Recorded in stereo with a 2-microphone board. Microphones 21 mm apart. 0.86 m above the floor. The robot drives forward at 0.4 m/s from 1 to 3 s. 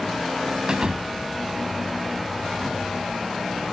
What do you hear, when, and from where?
0.7 s a thud: 50° right (ahead or behind)